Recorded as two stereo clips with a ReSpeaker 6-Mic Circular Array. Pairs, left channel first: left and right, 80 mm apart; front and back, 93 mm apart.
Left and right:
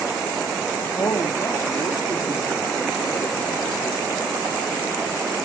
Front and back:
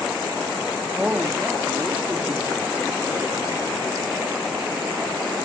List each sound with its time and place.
1.0 s a woman speaking: 105° left, 1.0 m